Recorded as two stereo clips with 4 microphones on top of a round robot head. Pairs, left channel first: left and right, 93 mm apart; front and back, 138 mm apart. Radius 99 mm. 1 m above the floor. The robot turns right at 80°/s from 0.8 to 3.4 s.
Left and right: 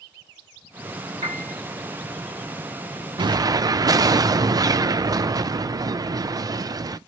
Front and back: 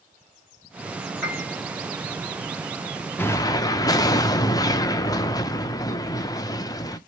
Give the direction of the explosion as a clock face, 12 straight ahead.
2 o'clock.